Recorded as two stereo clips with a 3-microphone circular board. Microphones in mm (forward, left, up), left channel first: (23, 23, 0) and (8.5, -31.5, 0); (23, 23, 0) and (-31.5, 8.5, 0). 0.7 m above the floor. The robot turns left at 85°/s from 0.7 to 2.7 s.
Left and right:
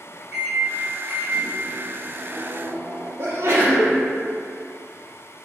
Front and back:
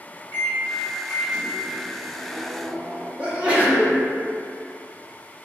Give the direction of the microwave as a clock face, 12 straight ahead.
1 o'clock.